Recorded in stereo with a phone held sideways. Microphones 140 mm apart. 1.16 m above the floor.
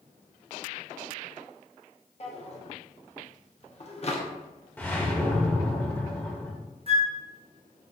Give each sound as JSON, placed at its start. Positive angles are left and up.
{"t": 2.2, "sound": "a drawer", "side_deg": 45, "distance_m": 0.8}
{"t": 4.8, "sound": "a whoosh", "side_deg": 15, "distance_m": 0.9}
{"t": 6.9, "sound": "a flute", "side_deg": -45, "distance_m": 0.6}